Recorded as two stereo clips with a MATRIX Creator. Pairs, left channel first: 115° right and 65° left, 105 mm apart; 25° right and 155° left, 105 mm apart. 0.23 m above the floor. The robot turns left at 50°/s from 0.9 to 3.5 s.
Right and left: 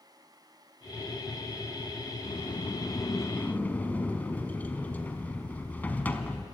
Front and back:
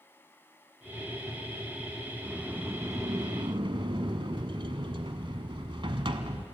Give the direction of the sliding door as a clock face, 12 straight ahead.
4 o'clock.